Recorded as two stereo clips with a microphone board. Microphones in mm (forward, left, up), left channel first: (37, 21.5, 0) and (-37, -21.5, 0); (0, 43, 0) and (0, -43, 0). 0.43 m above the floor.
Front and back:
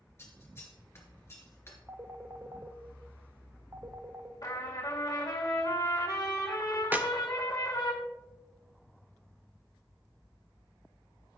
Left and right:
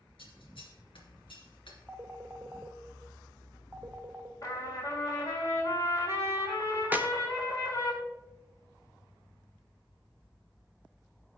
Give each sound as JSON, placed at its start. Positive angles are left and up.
{"t": 0.2, "sound": "scissors", "azimuth_deg": 90, "distance_m": 2.5}
{"t": 1.9, "sound": "a phone ringing", "azimuth_deg": -130, "distance_m": 0.8}
{"t": 4.4, "sound": "a trumpet", "azimuth_deg": 60, "distance_m": 2.5}
{"t": 6.9, "sound": "a clap", "azimuth_deg": -120, "distance_m": 0.6}